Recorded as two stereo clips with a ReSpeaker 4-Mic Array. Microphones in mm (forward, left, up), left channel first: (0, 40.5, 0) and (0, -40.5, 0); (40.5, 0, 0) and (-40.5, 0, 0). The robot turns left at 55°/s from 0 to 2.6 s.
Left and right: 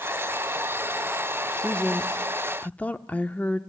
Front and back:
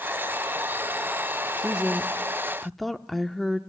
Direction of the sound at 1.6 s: 140° left.